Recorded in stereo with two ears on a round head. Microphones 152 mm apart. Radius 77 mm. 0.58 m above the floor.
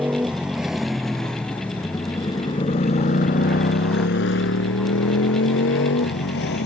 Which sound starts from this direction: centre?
A motorcycle, at 0.0 s.